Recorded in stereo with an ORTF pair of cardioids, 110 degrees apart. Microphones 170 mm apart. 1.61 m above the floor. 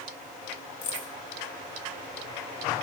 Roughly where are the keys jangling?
Ahead left.